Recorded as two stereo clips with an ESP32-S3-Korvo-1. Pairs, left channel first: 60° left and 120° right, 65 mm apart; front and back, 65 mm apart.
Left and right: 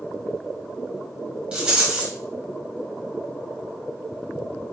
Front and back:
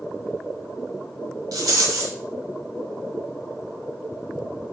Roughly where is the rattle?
Behind.